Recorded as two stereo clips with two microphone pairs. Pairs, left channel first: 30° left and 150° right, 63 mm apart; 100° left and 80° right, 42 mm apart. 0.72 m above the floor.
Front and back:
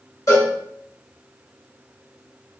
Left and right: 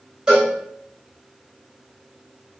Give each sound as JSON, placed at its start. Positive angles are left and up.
{"t": 0.3, "sound": "a cowbell", "azimuth_deg": -5, "distance_m": 2.5}